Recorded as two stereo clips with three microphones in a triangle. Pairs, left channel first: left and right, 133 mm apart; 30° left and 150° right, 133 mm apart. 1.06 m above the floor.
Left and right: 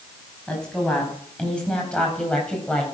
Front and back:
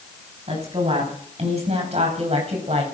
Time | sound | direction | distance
0.5 | a woman speaking | 175° left | 6 m